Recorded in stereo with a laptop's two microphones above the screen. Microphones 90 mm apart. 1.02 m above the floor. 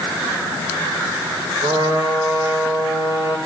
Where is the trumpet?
55° right (ahead or behind), 9 m.